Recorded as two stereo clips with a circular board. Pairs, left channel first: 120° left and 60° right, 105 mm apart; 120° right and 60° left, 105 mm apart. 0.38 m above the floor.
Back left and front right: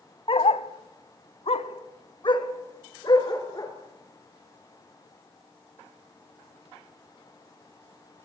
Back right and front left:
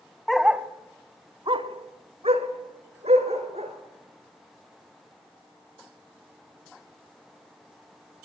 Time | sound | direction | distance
0.3 | a dog barking | 150° left | 0.9 m